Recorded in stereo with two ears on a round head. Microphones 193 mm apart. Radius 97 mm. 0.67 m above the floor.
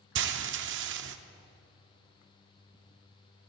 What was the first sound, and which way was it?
Frying, 55° right (ahead or behind).